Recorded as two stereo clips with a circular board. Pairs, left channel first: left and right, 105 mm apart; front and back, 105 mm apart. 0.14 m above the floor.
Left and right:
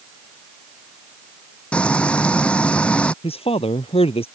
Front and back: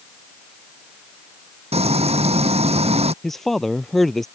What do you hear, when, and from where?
1.7 s frying: 170° left
3.2 s a man speaking: 85° left